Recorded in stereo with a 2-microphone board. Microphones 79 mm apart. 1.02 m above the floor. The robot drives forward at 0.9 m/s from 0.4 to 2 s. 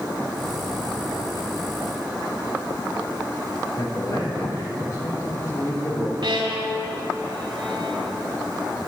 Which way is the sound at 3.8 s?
45° left (ahead or behind).